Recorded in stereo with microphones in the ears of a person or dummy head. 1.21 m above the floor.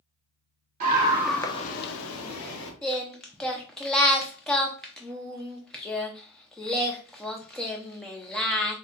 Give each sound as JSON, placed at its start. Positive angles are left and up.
{"t": 0.8, "sound": "a scream", "side_deg": -35, "distance_m": 0.9}
{"t": 2.8, "sound": "singing", "side_deg": 5, "distance_m": 0.6}